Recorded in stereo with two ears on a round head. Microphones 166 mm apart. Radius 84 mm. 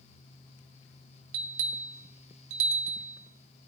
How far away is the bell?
About 0.6 m.